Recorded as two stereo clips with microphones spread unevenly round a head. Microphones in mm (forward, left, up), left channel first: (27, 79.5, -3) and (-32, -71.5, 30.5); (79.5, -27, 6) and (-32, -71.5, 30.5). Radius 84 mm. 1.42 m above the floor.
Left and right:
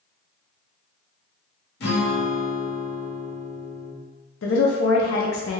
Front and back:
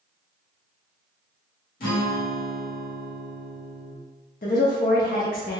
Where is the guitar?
35° left, 1.0 m.